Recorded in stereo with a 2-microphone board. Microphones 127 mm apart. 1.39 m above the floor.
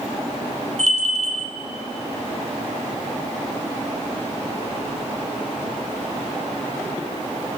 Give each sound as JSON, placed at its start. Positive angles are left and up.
{"t": 0.8, "sound": "a bell", "side_deg": -60, "distance_m": 3.5}